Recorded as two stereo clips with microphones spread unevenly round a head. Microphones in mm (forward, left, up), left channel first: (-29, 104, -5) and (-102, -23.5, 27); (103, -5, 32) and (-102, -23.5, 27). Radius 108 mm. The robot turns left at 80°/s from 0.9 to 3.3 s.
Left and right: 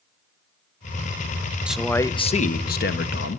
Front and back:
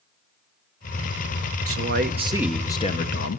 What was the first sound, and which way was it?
A man speaking, 165° left.